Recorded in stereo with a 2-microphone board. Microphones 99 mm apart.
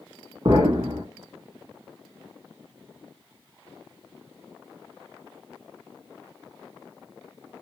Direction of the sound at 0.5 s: 40° right (ahead or behind).